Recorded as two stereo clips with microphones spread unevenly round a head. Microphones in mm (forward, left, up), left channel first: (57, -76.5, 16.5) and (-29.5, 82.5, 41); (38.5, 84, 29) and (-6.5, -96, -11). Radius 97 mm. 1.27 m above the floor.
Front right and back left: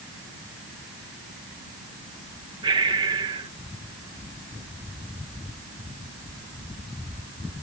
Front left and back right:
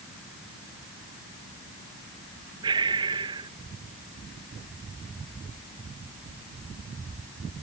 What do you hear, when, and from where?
2.6 s breathing: 170° right